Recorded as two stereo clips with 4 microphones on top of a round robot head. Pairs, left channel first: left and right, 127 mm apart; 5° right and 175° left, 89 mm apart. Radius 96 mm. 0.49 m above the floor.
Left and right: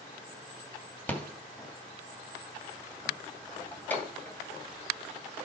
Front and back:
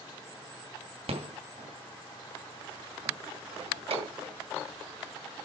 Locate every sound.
1.1 s a rattle: 170° left, 2.5 m